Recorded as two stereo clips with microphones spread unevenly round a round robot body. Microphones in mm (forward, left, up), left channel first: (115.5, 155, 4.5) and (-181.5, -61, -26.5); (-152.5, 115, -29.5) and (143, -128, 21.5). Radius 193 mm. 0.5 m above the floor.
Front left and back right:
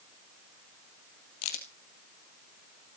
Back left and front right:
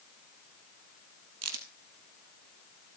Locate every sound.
1.4 s a crack: 15° left, 3 m